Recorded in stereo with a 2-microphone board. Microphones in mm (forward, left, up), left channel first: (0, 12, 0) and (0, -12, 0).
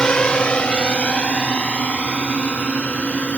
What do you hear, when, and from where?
0.0 s a drone: 35° left (ahead or behind); by 3.4 s 70° left (ahead or behind)